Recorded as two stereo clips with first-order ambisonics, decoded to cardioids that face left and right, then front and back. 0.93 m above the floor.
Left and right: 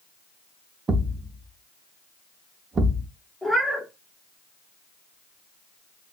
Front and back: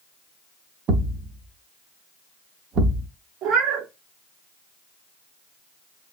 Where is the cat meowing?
Straight behind, 0.5 m.